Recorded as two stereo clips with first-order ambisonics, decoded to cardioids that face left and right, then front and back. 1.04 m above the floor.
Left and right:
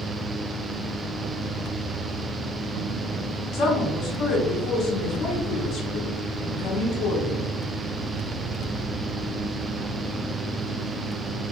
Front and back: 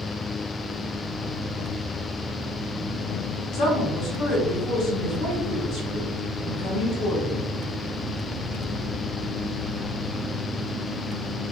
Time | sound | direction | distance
3.5 | a woman speaking | 40° left | 0.8 m